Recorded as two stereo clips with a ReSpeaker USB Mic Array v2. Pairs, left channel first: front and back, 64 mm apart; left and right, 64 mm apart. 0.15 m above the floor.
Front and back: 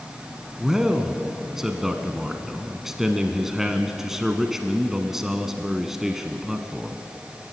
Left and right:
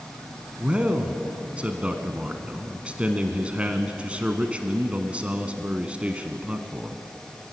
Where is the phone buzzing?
No phone buzzing in this recording.